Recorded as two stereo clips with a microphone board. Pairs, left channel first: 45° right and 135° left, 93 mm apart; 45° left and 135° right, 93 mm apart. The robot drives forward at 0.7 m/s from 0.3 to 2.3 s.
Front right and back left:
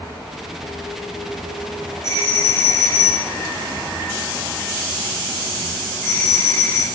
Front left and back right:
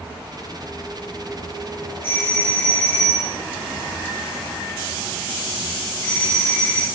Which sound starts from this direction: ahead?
A doorbell, at 2.0 s.